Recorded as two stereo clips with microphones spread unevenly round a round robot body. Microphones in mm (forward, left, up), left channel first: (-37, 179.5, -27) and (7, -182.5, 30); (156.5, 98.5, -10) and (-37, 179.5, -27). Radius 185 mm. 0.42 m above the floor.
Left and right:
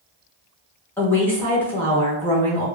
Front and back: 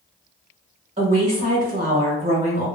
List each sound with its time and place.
1.0 s a woman speaking: 165° left, 0.8 m